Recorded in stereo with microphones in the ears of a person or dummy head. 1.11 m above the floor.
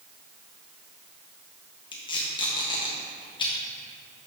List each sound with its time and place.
1.9 s tape being pulled: 20° left (ahead or behind), 1.2 m